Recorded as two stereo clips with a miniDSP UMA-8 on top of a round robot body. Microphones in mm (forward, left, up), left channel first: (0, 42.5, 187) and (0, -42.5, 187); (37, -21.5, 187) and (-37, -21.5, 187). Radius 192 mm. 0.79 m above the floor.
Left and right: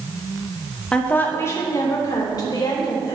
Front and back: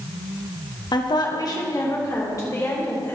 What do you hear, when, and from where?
0.9 s a woman speaking: 10° left, 1.8 m; by 3.2 s 55° left, 4.5 m